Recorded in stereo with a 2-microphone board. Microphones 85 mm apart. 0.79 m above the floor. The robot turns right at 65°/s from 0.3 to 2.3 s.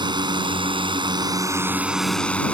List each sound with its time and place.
0.0 s a drone: 115° right; by 2.5 s 15° left